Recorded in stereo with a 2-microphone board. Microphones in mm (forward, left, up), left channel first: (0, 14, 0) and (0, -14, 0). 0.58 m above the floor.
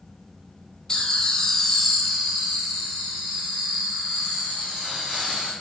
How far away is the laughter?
About 0.8 m.